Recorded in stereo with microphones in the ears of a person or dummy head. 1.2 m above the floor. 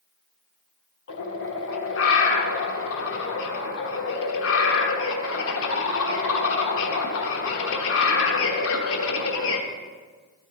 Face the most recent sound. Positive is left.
turn(degrees=70)  # may be behind; listen again after turning